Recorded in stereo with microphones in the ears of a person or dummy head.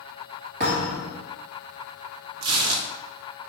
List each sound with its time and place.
0.6 s a thud: 45° right (ahead or behind), 1.9 m
2.4 s tearing paper: 75° right (ahead or behind), 1.1 m